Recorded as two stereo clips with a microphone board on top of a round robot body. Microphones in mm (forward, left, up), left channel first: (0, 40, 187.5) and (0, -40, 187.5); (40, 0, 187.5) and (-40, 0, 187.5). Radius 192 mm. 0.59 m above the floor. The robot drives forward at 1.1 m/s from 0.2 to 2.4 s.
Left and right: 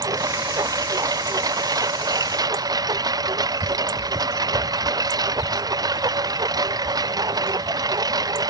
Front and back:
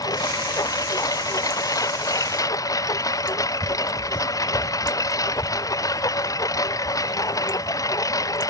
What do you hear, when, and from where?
0.0 s a lawn mower: 45° right; by 8.5 s 50° right